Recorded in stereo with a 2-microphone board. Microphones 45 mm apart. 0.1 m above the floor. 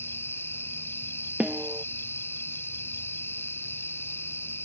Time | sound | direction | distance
0.0 | an insect | 65° left (ahead or behind) | ?
1.4 | a snare drum | 30° right (ahead or behind) | ?